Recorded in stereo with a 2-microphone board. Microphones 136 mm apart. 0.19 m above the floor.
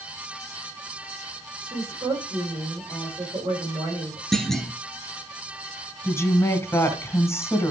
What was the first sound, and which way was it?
A woman speaking, 35° right (ahead or behind).